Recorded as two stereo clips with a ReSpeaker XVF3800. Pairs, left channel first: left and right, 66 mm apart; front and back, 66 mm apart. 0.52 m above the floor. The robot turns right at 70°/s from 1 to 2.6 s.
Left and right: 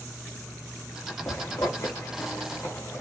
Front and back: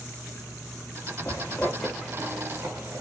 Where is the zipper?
35° left, 0.9 m; by 3.0 s 130° left, 0.9 m.